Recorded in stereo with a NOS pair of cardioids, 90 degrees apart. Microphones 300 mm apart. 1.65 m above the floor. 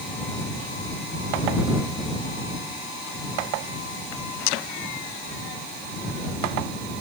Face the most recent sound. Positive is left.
No sound to turn to.